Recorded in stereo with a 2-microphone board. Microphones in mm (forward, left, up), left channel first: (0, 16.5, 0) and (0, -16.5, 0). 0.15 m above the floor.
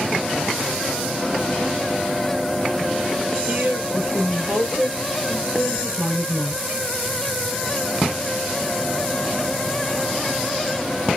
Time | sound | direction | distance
3.5 | a woman speaking | 50° right (ahead or behind) | 2 m